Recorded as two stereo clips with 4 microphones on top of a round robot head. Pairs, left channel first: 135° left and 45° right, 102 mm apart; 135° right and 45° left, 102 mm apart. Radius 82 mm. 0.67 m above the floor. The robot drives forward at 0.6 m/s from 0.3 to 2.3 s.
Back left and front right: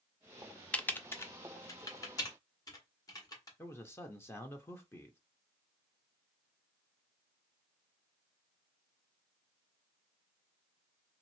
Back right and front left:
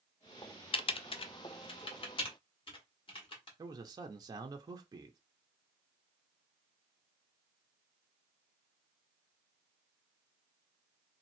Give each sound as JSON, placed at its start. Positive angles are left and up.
{"t": 0.7, "sound": "typing on a keyboard", "azimuth_deg": -145, "distance_m": 0.5}
{"t": 3.6, "sound": "a man speaking", "azimuth_deg": 80, "distance_m": 0.7}